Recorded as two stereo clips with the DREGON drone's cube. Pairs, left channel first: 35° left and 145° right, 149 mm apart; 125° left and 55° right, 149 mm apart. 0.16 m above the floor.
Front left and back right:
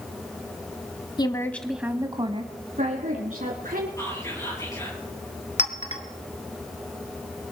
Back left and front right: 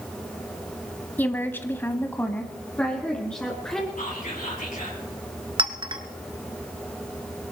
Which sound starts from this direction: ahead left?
A woman speaking, at 1.2 s.